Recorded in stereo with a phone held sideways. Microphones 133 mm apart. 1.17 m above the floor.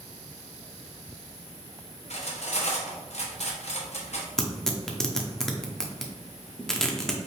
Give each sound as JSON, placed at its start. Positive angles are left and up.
{"t": 2.1, "sound": "cutlery clinking", "side_deg": 60, "distance_m": 1.0}
{"t": 4.4, "sound": "tearing paper", "side_deg": 5, "distance_m": 0.7}